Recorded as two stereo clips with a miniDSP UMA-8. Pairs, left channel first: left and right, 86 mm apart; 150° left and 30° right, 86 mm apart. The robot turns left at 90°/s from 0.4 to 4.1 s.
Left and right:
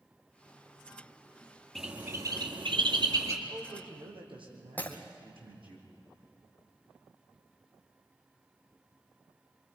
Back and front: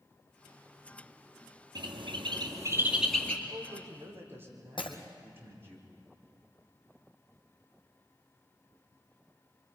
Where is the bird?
5° left, 2.5 m; by 3.4 s 140° right, 2.5 m.